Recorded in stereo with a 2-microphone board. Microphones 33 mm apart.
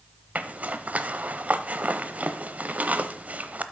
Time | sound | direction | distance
0.3 | a zipper | 45° right (ahead or behind) | 0.7 m